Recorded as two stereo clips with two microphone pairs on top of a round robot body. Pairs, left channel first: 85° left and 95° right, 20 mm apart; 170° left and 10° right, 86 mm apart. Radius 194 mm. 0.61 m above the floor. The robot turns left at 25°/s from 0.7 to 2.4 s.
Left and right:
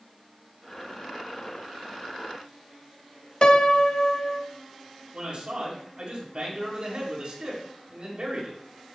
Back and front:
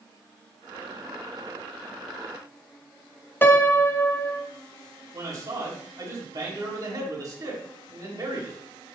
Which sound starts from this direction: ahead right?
A man speaking, at 5.1 s.